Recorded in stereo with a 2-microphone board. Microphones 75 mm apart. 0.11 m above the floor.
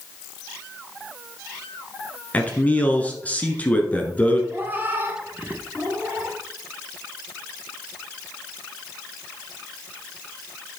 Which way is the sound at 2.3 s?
20° left (ahead or behind).